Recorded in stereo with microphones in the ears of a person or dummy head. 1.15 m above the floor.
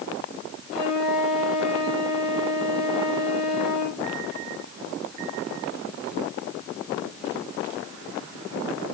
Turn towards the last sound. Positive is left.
turn(degrees=0)  # may be behind; listen again after turning